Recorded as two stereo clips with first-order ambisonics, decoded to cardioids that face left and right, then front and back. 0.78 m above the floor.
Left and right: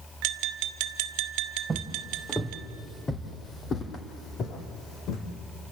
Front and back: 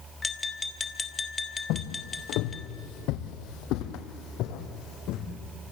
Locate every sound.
0.2 s tapping: 75° right, 1.5 m
1.7 s footsteps: 10° right, 1.6 m; by 5.3 s 40° left, 2.5 m